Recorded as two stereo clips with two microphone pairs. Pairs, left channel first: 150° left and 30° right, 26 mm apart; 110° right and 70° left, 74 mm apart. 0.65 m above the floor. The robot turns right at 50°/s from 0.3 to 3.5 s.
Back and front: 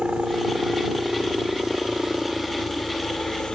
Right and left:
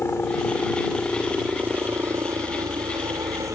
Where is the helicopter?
60° right; by 3.6 s 100° left.